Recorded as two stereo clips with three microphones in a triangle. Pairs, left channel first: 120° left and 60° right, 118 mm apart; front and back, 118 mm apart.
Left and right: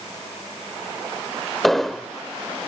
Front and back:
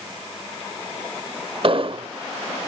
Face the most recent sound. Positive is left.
turn(degrees=-150)